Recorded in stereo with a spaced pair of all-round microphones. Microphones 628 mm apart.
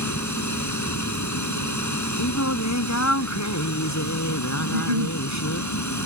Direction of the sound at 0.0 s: 25° left (ahead or behind).